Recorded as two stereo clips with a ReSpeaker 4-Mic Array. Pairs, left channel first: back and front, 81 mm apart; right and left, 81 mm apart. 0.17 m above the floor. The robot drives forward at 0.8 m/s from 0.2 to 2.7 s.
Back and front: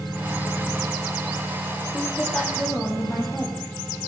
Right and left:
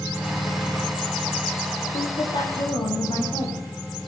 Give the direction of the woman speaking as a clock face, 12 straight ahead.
4 o'clock.